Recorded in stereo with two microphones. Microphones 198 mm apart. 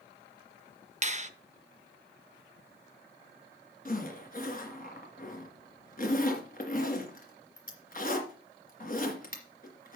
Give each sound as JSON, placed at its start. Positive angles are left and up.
{"t": 1.0, "sound": "a finger snap", "side_deg": -35, "distance_m": 0.7}
{"t": 3.9, "sound": "a zipper", "side_deg": 45, "distance_m": 2.5}